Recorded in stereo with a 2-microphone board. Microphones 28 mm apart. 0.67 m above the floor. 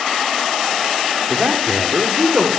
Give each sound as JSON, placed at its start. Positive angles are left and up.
{"t": 1.3, "sound": "a man speaking", "side_deg": -60, "distance_m": 1.9}